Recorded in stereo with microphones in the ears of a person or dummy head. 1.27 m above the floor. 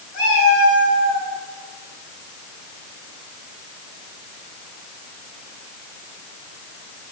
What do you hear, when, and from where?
0.1 s a cat meowing: 75° left (ahead or behind), 3 m; by 1.3 s 50° left (ahead or behind), 3 m